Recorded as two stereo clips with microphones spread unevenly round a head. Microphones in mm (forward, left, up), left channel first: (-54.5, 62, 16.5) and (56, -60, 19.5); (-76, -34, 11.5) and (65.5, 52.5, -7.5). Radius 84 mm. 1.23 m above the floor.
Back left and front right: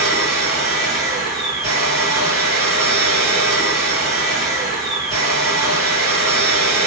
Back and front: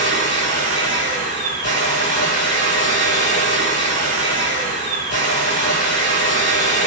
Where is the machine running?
120° right, 1.3 m.